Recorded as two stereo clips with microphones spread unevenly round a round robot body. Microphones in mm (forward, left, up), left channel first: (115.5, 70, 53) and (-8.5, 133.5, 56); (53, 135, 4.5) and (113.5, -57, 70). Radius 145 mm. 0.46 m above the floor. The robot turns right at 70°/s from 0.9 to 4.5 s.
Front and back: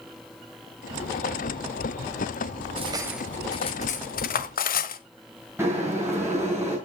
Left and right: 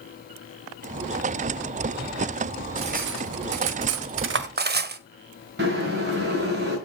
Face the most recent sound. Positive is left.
turn(degrees=-130)